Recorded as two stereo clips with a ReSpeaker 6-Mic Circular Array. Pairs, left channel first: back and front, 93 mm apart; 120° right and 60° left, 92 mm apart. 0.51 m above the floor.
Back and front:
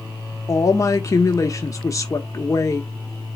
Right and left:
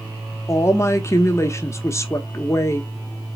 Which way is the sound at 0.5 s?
155° right.